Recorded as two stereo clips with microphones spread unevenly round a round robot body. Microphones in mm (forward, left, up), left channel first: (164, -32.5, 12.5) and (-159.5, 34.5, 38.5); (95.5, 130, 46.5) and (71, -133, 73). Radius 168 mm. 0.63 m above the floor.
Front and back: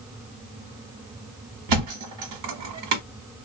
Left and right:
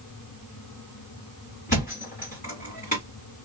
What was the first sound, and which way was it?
A thud, 155° left.